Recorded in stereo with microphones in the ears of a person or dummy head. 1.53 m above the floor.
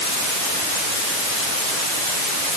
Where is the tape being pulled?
No tape being pulled in this recording.